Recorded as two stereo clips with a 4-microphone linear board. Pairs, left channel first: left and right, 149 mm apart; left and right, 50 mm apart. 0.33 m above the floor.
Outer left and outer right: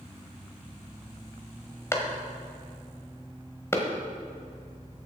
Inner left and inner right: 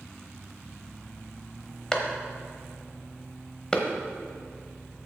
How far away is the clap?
About 1.2 m.